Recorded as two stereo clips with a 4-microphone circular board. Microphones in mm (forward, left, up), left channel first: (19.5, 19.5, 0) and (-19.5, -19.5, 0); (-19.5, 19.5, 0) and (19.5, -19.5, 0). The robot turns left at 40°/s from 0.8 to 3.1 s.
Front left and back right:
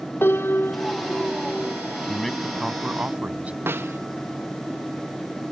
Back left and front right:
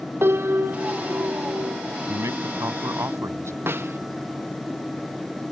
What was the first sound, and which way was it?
A piano, straight ahead.